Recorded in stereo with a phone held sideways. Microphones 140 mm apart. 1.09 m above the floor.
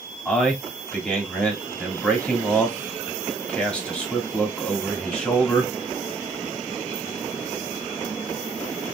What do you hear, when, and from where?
0.2 s a man speaking: 5° left (ahead or behind), 2 m